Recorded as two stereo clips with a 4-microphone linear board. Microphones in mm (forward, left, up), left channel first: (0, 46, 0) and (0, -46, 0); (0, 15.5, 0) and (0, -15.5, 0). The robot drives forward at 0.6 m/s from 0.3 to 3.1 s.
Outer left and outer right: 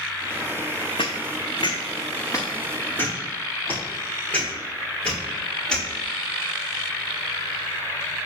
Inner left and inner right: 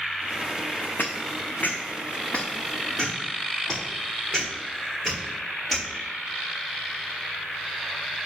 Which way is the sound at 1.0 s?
75° left (ahead or behind).